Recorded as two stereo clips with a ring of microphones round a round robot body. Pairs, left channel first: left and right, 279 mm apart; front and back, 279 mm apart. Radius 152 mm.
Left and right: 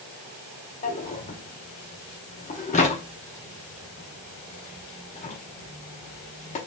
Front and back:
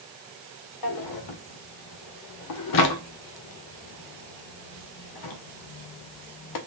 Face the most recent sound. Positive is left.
turn(degrees=20)